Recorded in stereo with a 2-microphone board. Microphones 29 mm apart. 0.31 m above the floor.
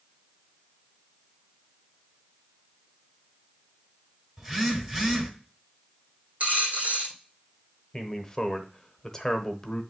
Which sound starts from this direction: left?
A man speaking, at 7.9 s.